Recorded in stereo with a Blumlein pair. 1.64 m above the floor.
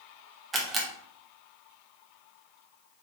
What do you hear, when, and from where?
0.5 s a camera shutter: 15° right, 0.9 m